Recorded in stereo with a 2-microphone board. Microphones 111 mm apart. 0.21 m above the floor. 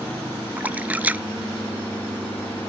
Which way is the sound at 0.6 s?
15° right (ahead or behind).